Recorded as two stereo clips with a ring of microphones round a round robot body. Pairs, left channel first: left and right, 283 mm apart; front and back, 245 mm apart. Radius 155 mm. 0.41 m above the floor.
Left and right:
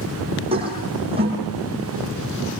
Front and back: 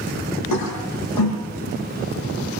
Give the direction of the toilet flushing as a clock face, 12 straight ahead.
1 o'clock.